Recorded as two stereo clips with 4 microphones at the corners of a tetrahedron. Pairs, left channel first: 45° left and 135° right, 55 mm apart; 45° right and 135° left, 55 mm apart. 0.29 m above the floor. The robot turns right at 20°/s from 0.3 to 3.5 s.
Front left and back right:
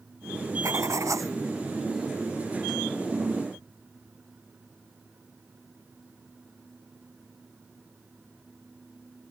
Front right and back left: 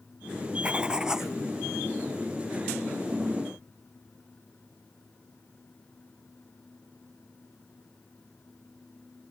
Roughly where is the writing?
Behind right.